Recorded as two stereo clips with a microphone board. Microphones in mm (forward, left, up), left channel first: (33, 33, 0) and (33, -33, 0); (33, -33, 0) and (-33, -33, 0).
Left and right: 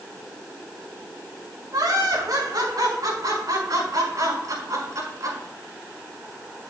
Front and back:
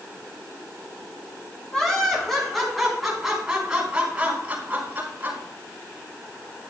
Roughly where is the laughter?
Right.